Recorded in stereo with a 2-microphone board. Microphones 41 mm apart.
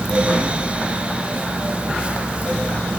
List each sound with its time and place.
Only background noise.